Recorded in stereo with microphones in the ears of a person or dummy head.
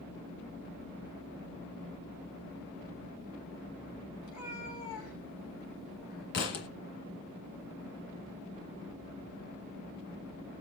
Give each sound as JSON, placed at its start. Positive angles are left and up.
{"t": 4.2, "sound": "a cat meowing", "side_deg": 75, "distance_m": 8.0}
{"t": 6.3, "sound": "a thud", "side_deg": 50, "distance_m": 1.9}